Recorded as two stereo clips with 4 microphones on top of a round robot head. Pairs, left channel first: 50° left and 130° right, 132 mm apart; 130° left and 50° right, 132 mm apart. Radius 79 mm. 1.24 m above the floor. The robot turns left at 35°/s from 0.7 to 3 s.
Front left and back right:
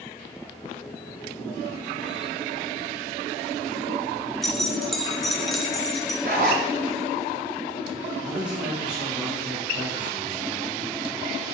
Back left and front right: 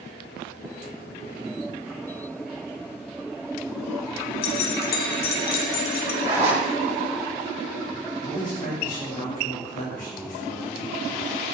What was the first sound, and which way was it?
Keys jangling, 140° left.